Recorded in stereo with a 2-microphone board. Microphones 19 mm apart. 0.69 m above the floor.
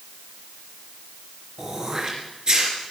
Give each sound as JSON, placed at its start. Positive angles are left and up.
{"t": 1.6, "sound": "throat clearing", "side_deg": -40, "distance_m": 4.0}